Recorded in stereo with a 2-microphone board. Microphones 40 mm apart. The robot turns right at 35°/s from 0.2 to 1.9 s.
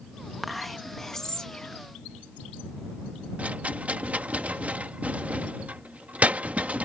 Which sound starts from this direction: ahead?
Whispering, at 0.4 s.